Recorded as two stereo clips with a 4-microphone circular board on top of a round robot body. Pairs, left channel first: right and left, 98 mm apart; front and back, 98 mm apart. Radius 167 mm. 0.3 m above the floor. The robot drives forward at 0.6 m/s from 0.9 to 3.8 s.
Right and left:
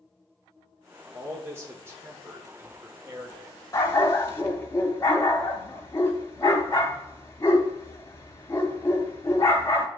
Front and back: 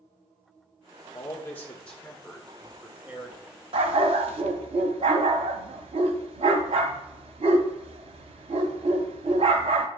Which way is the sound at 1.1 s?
40° left.